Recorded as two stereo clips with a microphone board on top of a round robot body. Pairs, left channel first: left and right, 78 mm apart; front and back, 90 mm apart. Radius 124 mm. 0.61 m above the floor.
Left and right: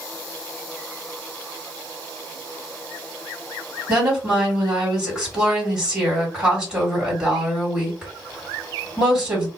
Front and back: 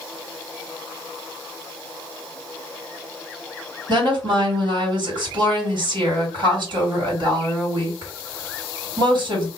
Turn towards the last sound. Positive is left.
turn(degrees=-165)